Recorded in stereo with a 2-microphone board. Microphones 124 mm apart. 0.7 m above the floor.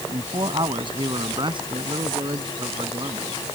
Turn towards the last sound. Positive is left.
turn(degrees=-40)  # may be behind; listen again after turning